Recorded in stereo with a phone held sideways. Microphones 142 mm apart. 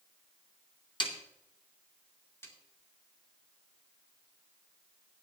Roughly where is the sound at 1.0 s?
Left.